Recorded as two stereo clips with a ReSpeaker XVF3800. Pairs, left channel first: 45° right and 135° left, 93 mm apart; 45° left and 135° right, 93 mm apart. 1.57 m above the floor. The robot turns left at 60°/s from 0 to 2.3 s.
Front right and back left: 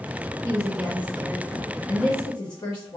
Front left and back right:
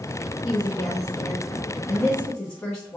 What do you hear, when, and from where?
0.4 s a woman speaking: 95° left, 1.0 m; by 3.0 s 15° right, 1.0 m